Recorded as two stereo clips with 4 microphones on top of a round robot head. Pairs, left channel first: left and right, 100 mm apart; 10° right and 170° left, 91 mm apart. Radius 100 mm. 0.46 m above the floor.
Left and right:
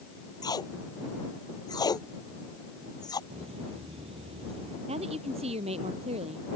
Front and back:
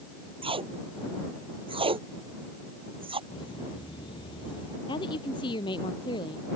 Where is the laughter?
55° right.